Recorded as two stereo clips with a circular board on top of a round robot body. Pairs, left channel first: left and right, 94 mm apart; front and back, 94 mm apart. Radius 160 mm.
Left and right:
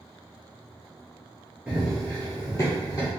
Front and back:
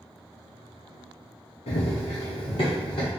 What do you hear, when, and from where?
1.7 s running footsteps: 10° right, 0.5 m; by 3.1 s 40° left, 1.1 m